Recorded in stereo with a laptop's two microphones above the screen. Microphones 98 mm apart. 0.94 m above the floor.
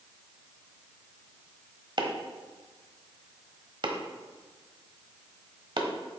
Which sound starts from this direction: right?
Chopping, at 2.0 s.